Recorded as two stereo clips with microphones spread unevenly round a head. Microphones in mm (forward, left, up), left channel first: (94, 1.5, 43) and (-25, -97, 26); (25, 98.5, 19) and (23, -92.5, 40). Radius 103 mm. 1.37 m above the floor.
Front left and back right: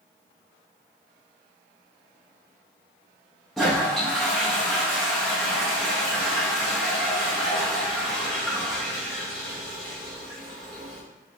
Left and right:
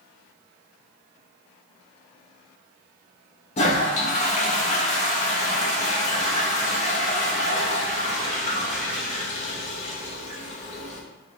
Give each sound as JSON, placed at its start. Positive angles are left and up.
{"t": 3.6, "sound": "a toilet flushing", "azimuth_deg": 115, "distance_m": 0.7}